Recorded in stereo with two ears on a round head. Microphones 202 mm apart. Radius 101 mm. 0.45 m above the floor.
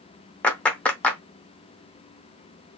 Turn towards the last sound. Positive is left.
turn(degrees=5)  # may be behind; listen again after turning